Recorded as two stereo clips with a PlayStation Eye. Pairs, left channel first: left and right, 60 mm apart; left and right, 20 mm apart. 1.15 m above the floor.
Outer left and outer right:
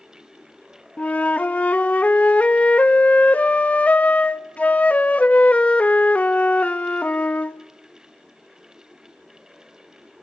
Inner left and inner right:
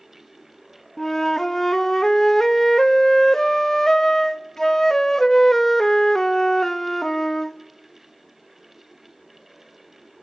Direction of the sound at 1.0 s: 25° left (ahead or behind).